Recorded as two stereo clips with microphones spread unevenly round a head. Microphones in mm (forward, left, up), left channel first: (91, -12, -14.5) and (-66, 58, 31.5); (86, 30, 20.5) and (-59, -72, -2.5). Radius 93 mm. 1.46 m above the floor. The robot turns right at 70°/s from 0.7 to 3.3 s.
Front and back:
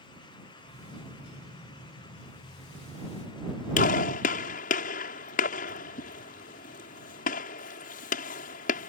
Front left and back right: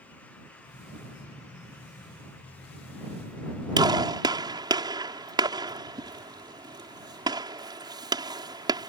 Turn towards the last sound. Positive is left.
turn(degrees=-75)